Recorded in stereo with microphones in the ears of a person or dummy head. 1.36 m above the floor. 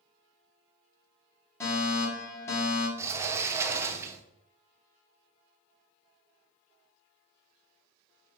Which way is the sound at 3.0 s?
15° right (ahead or behind).